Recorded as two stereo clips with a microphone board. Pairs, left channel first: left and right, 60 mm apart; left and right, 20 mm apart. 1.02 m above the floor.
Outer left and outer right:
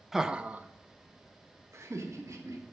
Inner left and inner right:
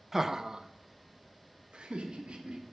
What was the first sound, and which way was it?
Laughter, 5° right (ahead or behind).